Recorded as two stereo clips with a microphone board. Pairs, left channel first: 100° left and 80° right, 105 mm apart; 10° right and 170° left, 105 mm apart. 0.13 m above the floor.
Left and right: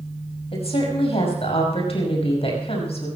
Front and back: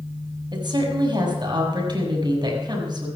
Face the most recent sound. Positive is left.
turn(degrees=125)